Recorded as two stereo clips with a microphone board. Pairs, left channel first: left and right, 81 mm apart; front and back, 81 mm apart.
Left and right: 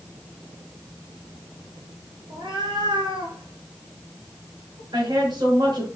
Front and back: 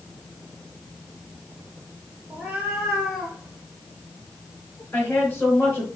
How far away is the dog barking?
No dog barking in this recording.